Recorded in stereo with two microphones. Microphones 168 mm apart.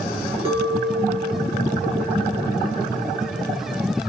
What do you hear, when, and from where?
0.5 s a clink: 35° right (ahead or behind), 2.5 m